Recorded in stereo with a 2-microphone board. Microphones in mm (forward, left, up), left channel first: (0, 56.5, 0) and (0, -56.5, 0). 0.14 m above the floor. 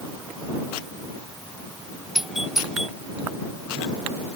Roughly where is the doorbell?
Centre.